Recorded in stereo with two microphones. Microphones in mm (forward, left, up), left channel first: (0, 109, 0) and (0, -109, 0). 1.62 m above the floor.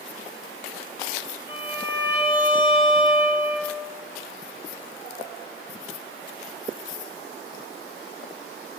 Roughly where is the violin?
Centre.